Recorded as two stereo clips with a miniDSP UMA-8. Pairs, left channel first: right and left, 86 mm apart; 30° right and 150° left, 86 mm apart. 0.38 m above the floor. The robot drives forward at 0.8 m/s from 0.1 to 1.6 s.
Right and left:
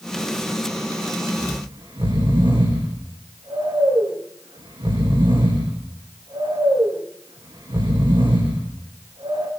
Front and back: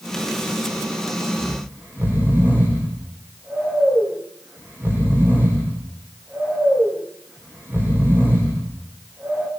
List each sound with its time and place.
1.4 s snoring: 80° left, 8.5 m